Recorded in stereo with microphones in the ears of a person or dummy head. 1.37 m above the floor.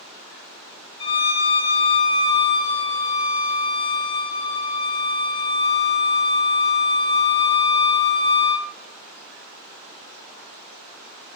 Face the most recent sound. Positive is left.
turn(degrees=30)  # may be behind; listen again after turning